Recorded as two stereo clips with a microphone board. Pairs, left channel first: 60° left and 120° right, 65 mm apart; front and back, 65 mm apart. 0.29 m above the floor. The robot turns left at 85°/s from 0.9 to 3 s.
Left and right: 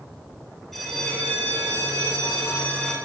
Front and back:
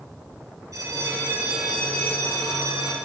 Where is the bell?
150° left, 4.5 m; by 3.0 s 25° right, 4.5 m.